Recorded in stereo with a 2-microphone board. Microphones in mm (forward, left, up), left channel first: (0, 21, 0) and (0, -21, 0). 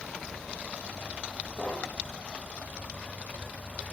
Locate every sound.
1.6 s knocking: 20° right (ahead or behind), 4 m